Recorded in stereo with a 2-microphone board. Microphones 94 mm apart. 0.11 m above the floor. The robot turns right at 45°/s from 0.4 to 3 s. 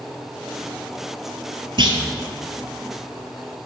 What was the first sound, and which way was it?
A clunk, 60° right (ahead or behind).